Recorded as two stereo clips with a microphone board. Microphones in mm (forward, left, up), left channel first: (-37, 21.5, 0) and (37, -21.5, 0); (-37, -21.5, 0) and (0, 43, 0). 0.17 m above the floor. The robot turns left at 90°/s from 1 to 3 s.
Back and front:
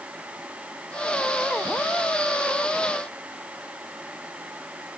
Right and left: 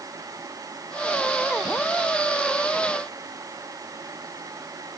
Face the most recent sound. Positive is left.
No sound to turn to.